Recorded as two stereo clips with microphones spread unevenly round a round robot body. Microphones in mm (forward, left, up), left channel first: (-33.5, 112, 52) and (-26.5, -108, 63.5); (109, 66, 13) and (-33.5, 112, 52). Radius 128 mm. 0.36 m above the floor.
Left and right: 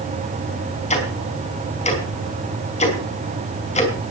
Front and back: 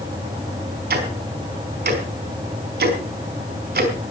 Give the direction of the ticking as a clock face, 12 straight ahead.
7 o'clock.